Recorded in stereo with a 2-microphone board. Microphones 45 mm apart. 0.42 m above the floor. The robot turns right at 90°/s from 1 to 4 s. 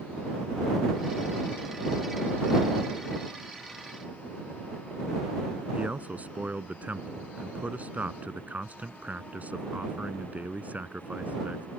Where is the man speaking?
35° right (ahead or behind).